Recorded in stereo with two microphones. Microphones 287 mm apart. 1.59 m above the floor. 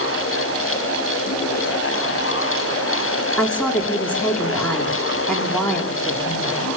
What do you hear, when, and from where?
3.4 s a woman speaking: 5° left (ahead or behind), 4 m